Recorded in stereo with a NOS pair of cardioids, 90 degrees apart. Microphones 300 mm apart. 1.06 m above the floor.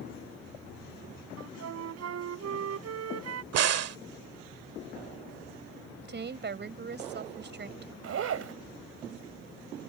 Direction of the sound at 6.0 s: 40° right.